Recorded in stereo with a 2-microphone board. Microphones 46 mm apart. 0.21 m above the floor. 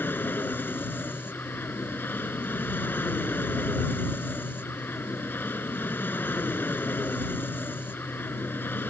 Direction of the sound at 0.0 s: 45° left (ahead or behind).